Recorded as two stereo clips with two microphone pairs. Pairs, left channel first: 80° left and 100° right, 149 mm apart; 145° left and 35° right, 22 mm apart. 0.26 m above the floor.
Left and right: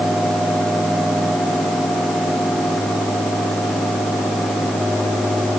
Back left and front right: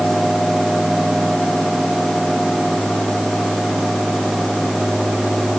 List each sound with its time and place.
Only background noise.